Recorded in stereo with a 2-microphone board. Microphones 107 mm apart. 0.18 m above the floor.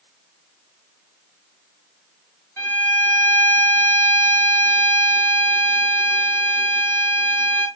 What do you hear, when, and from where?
2.6 s a violin: 25° left (ahead or behind), 2 m